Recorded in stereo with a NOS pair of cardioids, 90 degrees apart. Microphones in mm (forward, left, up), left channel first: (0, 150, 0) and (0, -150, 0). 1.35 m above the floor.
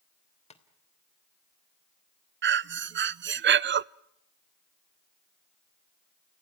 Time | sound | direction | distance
0.5 | tapping | 20° left | 3 m
2.4 | breathing | 40° right | 0.6 m